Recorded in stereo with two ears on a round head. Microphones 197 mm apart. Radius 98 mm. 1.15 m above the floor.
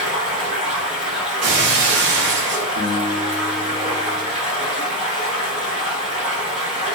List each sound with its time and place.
0.0 s running water: 5° right (ahead or behind), 1.8 m
1.4 s breaking glass: 55° right (ahead or behind), 0.6 m
2.8 s a guitar: 45° right (ahead or behind), 0.7 m